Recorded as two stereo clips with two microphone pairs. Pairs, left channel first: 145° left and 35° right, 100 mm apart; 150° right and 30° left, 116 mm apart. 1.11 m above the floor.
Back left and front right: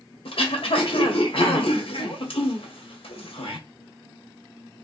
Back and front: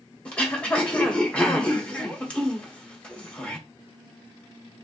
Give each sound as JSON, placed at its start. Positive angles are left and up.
{"t": 0.2, "sound": "throat clearing", "azimuth_deg": 130, "distance_m": 1.5}